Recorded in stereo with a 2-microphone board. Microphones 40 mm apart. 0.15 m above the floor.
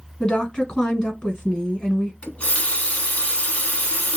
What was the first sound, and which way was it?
A woman speaking, 20° left (ahead or behind).